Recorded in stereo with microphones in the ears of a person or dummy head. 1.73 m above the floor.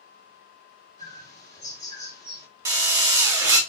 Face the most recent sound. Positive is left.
turn(degrees=-20)  # may be behind; listen again after turning